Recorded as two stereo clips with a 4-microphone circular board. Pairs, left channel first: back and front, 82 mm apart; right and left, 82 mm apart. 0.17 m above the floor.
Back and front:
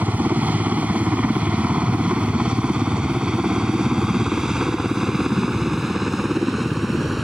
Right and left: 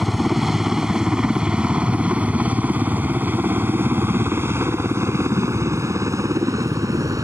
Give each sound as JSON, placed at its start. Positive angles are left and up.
{"t": 0.0, "sound": "a helicopter", "azimuth_deg": 5}